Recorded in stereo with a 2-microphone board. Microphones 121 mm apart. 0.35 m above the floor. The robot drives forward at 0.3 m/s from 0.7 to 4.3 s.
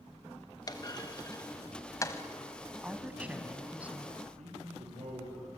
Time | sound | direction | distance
0.7 | a clunk | 35° left (ahead or behind) | 1.2 m
2.8 | a woman speaking | 15° right (ahead or behind) | 2 m
4.4 | a man speaking | 75° right (ahead or behind) | 8 m